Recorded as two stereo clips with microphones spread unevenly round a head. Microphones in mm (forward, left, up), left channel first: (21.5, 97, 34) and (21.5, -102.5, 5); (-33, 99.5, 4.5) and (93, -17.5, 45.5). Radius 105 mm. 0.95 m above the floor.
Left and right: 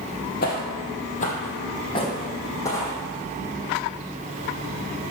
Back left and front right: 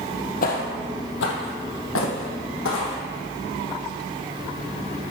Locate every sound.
0.4 s footsteps: 100° left, 1.4 m; by 3.0 s 165° left, 2 m